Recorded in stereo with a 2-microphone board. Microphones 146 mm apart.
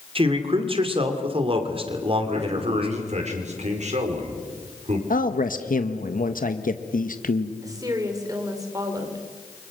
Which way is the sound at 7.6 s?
25° right (ahead or behind).